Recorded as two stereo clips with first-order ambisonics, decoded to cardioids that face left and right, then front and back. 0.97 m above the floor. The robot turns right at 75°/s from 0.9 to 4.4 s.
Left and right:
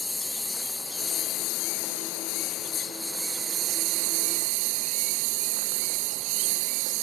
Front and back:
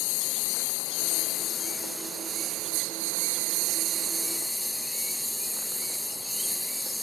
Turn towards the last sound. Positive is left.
turn(degrees=-85)